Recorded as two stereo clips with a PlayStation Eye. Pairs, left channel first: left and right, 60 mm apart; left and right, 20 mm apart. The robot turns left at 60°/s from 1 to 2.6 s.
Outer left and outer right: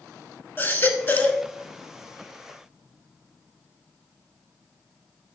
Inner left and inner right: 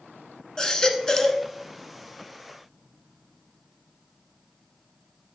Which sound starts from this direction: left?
A baby crying, at 0.6 s.